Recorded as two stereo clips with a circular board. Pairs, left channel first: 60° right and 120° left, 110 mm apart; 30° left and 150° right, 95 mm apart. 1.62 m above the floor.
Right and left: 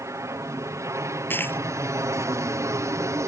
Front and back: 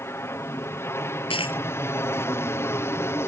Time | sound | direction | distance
0.0 | an aircraft | 75° left | ?
1.3 | a dropped coin | 10° left | ?